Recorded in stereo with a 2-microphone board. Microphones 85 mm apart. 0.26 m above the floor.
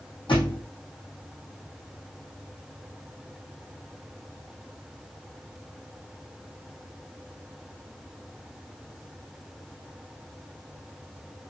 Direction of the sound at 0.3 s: 85° left.